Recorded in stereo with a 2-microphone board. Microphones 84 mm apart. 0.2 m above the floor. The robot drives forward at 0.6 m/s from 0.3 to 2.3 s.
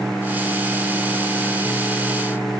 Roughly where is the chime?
I don't hear a chime.